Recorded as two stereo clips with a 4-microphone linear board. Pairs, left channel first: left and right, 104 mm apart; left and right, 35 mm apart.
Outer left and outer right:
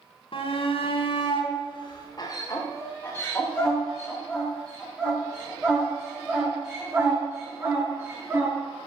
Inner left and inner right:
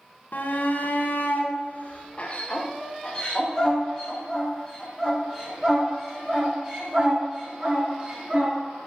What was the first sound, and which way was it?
A shout, 60° left (ahead or behind).